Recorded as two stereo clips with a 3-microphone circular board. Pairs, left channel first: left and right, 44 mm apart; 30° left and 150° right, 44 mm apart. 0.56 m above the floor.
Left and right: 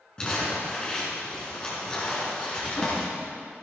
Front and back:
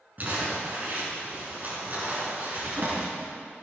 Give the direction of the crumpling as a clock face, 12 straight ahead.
7 o'clock.